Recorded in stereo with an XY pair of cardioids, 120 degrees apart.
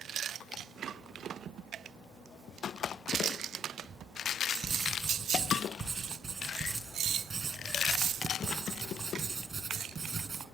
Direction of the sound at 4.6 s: 35° right.